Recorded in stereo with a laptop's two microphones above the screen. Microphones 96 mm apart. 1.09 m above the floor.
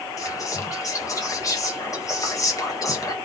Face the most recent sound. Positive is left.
turn(degrees=35)  # may be behind; listen again after turning